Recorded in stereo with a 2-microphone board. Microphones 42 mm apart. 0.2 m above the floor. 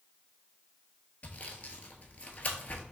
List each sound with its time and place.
1.2 s sawing: 40° left (ahead or behind), 0.8 m